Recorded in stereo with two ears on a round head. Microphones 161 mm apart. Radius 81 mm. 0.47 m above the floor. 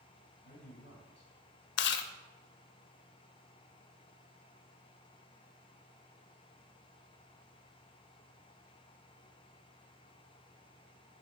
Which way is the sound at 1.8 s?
70° left (ahead or behind).